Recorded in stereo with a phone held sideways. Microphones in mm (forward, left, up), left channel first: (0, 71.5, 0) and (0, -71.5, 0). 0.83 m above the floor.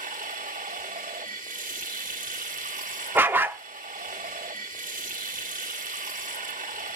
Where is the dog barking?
15° right (ahead or behind), 0.6 m.